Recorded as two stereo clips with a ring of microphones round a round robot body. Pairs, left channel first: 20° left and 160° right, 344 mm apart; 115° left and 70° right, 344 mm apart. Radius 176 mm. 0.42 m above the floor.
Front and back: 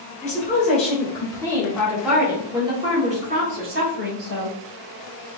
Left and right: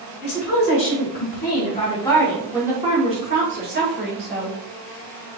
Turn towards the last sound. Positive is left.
turn(degrees=-105)